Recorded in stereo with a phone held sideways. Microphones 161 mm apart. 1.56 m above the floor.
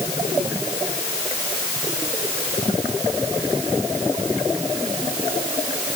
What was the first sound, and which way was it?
Only background noise.